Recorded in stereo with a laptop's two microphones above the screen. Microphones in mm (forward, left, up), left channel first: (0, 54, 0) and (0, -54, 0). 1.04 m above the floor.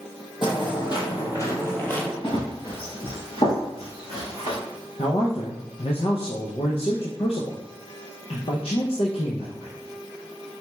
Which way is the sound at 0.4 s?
50° left (ahead or behind).